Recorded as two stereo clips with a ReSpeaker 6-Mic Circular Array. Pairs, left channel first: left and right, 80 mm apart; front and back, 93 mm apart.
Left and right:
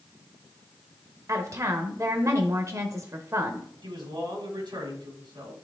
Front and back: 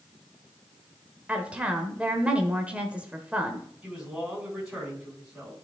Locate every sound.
1.3 s a woman speaking: 110° right, 1.1 m
3.8 s a man speaking: 95° right, 4.5 m